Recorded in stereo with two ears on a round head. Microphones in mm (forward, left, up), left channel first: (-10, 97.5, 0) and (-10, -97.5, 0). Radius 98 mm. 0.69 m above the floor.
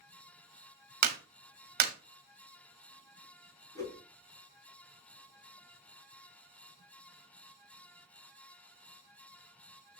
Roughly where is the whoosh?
Centre.